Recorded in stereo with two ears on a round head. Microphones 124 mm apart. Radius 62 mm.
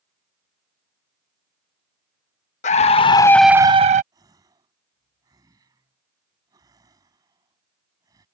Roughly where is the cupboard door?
No cupboard door in this recording.